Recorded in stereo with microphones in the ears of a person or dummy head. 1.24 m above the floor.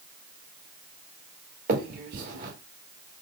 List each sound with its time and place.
1.7 s a finger snap: 35° right (ahead or behind), 1.3 m